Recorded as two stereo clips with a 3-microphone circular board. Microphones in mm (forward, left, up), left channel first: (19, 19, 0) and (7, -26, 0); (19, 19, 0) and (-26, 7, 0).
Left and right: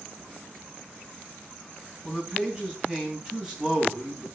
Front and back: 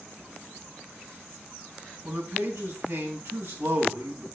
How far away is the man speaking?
About 3.5 m.